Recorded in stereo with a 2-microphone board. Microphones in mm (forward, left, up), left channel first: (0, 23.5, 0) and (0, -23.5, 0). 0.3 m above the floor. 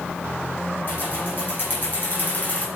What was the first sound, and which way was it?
Keys jangling, 45° left (ahead or behind).